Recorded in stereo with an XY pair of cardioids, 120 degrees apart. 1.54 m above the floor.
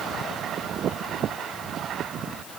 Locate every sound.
Only background noise.